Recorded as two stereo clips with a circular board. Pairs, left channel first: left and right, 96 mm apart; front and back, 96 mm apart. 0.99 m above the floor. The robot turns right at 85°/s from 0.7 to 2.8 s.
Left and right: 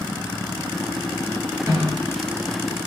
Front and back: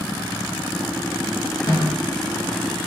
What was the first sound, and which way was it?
A snare drum, 35° right.